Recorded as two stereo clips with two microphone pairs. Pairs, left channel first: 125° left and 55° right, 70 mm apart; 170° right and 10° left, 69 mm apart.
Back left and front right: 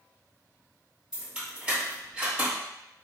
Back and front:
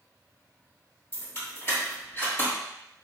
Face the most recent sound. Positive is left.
turn(degrees=-130)